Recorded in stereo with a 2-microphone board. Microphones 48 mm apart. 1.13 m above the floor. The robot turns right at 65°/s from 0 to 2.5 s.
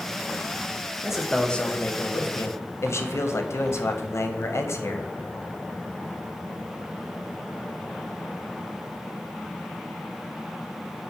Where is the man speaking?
15° right, 0.5 m; by 5.1 s 80° left, 0.5 m.